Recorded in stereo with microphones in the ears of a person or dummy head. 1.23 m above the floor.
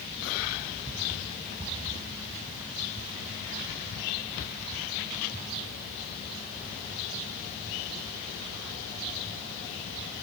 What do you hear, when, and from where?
Only background noise.